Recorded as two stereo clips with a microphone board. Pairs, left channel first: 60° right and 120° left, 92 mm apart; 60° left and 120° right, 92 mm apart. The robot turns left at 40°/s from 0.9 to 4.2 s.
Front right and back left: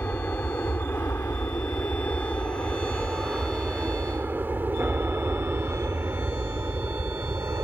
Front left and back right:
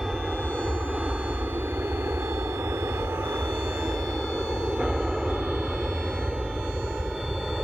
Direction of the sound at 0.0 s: 40° right.